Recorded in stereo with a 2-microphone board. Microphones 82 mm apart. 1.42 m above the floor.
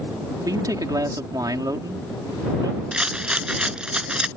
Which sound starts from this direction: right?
A man speaking, at 0.5 s.